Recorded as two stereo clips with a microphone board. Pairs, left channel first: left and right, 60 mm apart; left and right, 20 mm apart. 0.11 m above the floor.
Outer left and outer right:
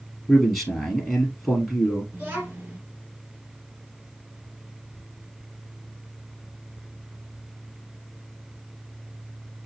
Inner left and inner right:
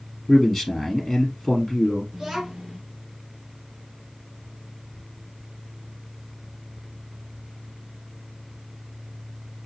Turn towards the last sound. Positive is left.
turn(degrees=-25)  # may be behind; listen again after turning